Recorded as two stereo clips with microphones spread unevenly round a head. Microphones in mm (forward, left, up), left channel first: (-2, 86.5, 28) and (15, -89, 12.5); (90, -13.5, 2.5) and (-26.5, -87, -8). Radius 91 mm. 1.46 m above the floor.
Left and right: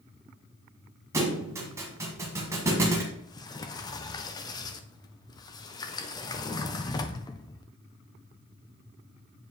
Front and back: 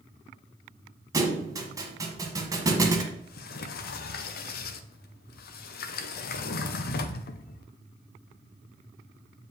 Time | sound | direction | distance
1.1 | a thud | 145° right | 1.4 m
3.1 | a sliding door | 25° left | 0.6 m